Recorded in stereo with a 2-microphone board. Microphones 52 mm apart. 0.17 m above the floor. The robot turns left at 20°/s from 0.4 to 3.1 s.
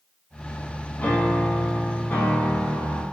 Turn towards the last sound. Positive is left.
turn(degrees=60)